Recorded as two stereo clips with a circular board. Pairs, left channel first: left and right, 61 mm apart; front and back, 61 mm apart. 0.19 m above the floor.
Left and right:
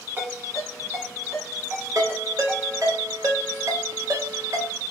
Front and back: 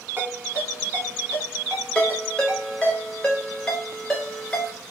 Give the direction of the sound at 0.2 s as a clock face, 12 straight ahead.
4 o'clock.